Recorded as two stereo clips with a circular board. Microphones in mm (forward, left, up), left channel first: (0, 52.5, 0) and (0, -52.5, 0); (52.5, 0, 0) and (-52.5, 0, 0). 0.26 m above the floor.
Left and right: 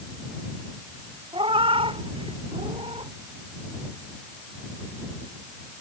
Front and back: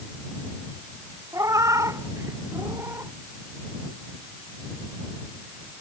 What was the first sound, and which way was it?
A cat meowing, 120° right.